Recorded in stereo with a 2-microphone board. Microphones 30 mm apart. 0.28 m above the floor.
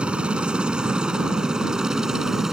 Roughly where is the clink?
No clink in this recording.